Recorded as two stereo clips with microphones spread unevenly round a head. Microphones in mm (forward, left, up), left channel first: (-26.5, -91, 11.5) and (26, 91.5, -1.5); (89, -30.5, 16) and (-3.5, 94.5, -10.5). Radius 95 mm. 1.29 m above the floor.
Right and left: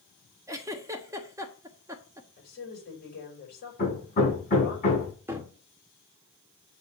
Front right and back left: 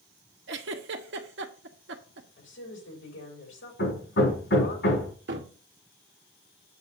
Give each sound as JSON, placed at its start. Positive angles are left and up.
{"t": 0.5, "sound": "a giggle", "azimuth_deg": 150, "distance_m": 1.2}
{"t": 2.4, "sound": "a woman speaking", "azimuth_deg": -65, "distance_m": 6.0}
{"t": 3.8, "sound": "hammering", "azimuth_deg": -55, "distance_m": 5.5}
{"t": 5.3, "sound": "a cupboard door", "azimuth_deg": 155, "distance_m": 1.6}